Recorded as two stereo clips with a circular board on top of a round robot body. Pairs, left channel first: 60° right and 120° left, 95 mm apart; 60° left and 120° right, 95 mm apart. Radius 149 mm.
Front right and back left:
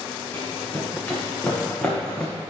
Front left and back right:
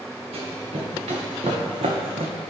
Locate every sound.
0.3 s running footsteps: 135° right, 3 m; by 2.3 s 140° right, 1.0 m